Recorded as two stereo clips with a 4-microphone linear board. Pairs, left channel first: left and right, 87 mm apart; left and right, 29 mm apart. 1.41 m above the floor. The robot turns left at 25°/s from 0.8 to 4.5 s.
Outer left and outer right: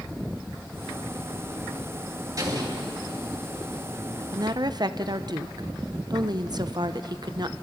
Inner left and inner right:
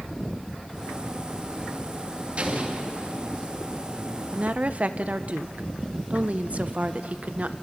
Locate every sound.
2.4 s an explosion: 45° right (ahead or behind), 2.5 m; by 3.3 s 65° right (ahead or behind), 2.5 m
4.3 s a woman speaking: 45° right (ahead or behind), 0.7 m; by 7.5 s 50° right (ahead or behind), 0.7 m